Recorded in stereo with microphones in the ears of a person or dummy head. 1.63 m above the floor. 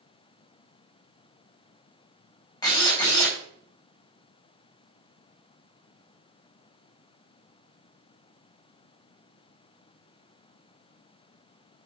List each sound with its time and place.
2.6 s a drill: 15° left (ahead or behind), 5 m